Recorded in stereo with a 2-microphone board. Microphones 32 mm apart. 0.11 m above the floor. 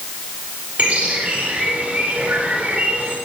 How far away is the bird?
About 9.5 m.